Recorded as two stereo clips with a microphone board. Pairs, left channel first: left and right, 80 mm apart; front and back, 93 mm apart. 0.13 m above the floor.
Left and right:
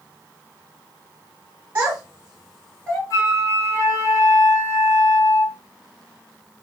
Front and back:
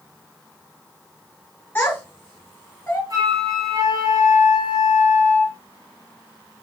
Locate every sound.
1.8 s a child speaking: 45° right, 1.3 m; by 3.0 s 45° left, 1.3 m
3.1 s a flute: 135° left, 0.8 m